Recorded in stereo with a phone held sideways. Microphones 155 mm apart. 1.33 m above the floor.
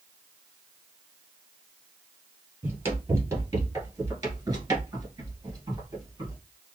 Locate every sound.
2.6 s running footsteps: 15° right (ahead or behind), 1.7 m; by 6.4 s 25° right (ahead or behind), 1.7 m